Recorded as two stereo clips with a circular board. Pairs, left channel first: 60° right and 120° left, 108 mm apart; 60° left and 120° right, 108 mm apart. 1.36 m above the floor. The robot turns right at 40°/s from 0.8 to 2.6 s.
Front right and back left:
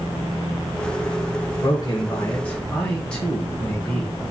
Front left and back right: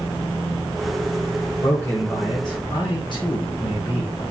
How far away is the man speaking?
About 1.2 m.